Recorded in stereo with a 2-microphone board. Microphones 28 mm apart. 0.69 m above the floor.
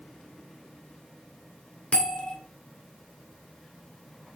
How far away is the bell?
About 1.9 m.